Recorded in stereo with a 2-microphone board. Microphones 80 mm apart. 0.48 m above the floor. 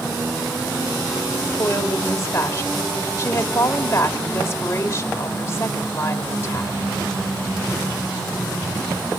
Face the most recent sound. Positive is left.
turn(degrees=35)  # may be behind; listen again after turning